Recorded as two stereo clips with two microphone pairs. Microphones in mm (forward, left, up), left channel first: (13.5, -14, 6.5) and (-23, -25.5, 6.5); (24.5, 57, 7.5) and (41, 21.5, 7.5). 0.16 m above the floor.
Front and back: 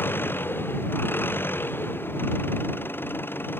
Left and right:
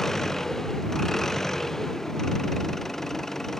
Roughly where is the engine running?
Ahead left.